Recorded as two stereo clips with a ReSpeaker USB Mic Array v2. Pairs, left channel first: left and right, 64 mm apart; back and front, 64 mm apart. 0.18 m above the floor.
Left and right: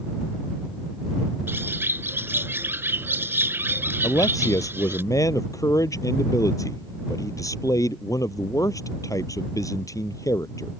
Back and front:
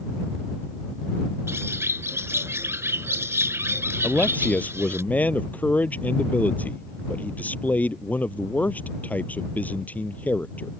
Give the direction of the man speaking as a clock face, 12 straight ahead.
8 o'clock.